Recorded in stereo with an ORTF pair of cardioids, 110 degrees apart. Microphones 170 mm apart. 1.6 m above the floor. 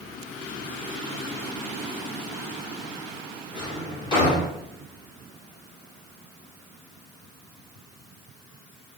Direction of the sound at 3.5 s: 30° left.